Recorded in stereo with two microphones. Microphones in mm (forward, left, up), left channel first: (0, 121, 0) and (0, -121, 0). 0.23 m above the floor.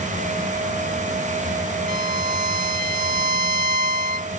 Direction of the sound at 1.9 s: 35° right (ahead or behind).